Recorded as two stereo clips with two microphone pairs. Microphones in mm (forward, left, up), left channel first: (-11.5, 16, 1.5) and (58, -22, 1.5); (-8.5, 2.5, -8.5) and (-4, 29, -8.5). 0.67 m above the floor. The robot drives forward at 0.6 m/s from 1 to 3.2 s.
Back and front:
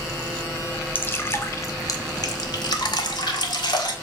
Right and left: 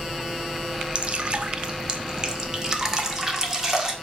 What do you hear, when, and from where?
0.9 s dripping: 95° left, 1.2 m; by 3.9 s 150° left, 1.8 m